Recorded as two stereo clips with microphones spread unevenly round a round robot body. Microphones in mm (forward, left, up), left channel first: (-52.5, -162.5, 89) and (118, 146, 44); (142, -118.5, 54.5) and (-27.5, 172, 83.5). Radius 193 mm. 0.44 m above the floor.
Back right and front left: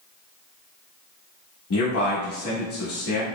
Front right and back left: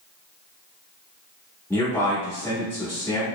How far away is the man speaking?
About 0.9 m.